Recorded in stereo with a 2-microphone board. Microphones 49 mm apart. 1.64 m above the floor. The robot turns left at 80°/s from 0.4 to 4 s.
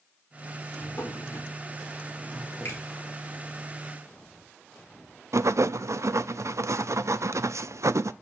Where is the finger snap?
60° left (ahead or behind), 9 m; by 2.8 s 45° left (ahead or behind), 9 m.